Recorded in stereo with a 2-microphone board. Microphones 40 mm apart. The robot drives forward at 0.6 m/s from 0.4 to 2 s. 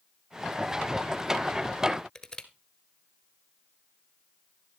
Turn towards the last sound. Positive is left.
turn(degrees=15)  # may be behind; listen again after turning